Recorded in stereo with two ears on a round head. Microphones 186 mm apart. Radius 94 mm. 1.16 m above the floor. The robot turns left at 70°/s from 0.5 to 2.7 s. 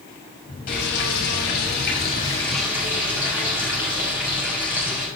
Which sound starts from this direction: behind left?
Frying, at 0.7 s.